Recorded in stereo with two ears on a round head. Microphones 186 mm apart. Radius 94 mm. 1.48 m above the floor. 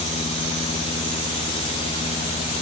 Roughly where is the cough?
No cough in this recording.